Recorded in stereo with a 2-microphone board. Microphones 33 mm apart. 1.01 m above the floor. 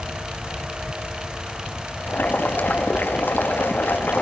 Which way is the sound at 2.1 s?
75° left (ahead or behind).